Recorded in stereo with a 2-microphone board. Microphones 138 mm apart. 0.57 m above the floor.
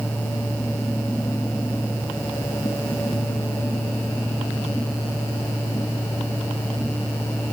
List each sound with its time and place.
Only background noise.